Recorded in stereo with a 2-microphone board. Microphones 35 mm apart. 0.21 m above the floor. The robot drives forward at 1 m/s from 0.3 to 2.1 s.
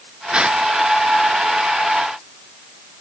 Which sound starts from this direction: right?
A gasp, at 0.3 s.